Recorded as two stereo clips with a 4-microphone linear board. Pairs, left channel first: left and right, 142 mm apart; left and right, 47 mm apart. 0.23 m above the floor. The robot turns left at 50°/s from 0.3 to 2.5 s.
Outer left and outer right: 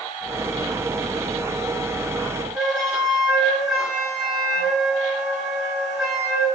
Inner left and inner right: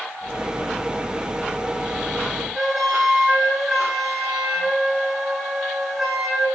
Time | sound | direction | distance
2.5 | a flute | 5° right (ahead or behind) | 3 m